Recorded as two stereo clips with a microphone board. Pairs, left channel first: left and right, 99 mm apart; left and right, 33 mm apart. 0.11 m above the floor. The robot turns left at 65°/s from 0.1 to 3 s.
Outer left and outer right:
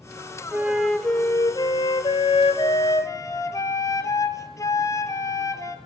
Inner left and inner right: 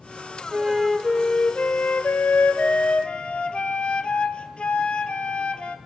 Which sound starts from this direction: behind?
A flute, at 0.5 s.